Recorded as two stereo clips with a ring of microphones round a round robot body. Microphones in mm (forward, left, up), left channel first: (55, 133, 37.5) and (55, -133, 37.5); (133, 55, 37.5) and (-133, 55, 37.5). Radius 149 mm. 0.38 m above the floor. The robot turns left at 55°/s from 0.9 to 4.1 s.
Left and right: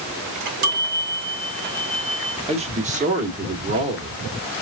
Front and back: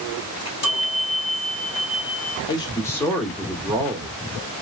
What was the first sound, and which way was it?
A chime, 70° right.